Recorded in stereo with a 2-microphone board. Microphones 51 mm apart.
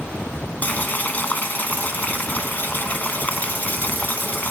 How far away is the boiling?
About 1.0 m.